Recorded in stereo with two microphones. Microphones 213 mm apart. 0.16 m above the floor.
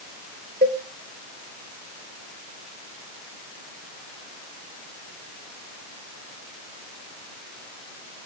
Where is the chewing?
No chewing in this recording.